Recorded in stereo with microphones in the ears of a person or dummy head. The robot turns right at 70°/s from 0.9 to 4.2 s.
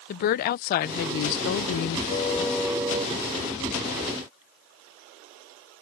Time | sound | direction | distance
0.1 | a woman speaking | 50° left | ?
2.1 | a car horn | 145° left | ?